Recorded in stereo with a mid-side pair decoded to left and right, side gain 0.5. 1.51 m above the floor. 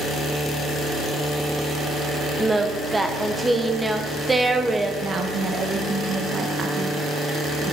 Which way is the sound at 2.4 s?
15° right.